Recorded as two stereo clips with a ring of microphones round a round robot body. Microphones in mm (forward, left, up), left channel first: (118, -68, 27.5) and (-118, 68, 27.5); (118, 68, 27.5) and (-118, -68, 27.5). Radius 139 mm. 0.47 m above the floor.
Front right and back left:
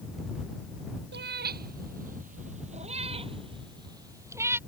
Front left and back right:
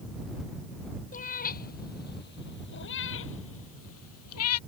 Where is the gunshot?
I don't hear a gunshot.